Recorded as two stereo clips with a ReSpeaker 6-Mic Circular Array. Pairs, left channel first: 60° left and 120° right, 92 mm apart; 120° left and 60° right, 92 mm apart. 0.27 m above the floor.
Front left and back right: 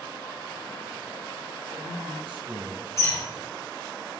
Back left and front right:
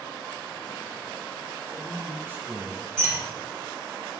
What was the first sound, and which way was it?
A man speaking, 120° right.